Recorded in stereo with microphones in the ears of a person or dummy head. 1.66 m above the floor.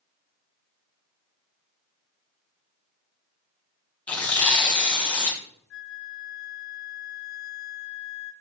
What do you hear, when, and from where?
4.1 s tearing paper: 5° left (ahead or behind), 0.9 m
5.7 s a flute: 70° left (ahead or behind), 0.5 m